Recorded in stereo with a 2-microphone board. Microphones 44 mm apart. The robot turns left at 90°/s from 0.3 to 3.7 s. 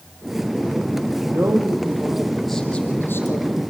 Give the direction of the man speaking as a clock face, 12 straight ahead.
2 o'clock.